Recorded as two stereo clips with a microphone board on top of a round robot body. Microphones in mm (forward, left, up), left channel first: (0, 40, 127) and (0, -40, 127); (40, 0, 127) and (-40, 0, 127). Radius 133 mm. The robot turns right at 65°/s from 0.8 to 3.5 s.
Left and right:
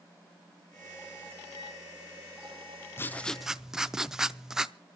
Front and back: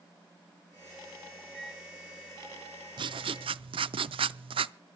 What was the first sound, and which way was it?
A microwave, 70° left.